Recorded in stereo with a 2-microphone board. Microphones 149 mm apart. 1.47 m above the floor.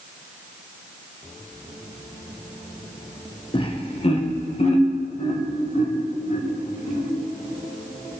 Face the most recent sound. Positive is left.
turn(degrees=55)  # may be behind; listen again after turning